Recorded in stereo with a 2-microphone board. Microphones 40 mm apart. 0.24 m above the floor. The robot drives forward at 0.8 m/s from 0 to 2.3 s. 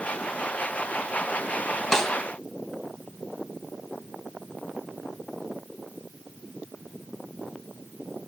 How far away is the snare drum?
About 1.2 m.